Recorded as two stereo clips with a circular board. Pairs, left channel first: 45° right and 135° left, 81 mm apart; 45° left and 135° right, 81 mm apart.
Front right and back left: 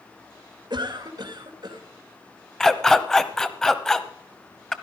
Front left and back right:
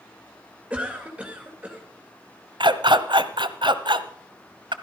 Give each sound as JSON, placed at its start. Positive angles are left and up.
{"t": 0.7, "sound": "a cough", "azimuth_deg": 150, "distance_m": 2.5}
{"t": 2.6, "sound": "a dog barking", "azimuth_deg": -130, "distance_m": 1.0}